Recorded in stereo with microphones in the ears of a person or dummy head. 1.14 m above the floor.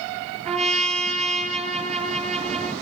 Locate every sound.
0.5 s a trumpet: 40° right (ahead or behind), 3.5 m